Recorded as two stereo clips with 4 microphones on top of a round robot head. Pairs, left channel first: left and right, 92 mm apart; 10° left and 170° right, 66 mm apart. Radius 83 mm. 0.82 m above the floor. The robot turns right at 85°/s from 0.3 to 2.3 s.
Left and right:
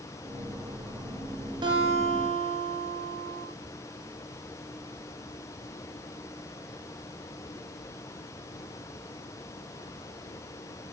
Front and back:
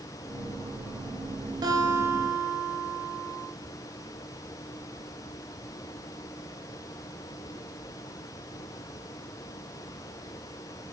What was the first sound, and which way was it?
A guitar, 140° right.